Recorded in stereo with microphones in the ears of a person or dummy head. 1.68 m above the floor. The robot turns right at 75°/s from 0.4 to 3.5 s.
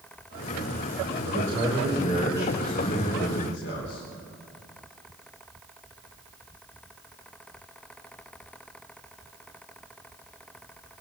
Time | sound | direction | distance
1.2 | a man speaking | 100° right | 4.5 m